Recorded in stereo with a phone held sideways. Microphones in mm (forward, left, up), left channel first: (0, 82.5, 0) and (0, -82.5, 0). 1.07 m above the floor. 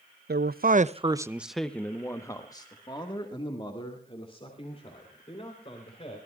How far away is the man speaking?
About 0.7 m.